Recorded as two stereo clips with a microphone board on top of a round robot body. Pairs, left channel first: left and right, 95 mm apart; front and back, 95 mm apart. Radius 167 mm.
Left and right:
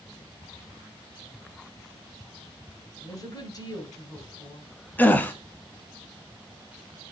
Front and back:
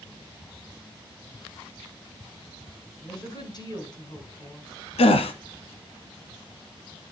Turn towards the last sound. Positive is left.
turn(degrees=15)